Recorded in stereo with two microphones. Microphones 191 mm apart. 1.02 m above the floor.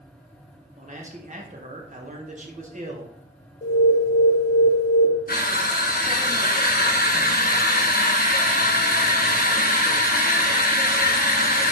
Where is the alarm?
50° left (ahead or behind), 0.5 m.